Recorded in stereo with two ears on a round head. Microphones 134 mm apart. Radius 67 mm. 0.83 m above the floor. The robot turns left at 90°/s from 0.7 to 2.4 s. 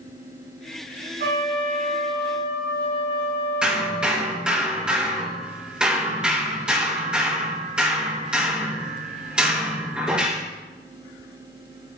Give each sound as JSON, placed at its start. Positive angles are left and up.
{"t": 1.2, "sound": "a trumpet", "azimuth_deg": -115, "distance_m": 3.0}
{"t": 3.6, "sound": "hammering", "side_deg": -5, "distance_m": 5.0}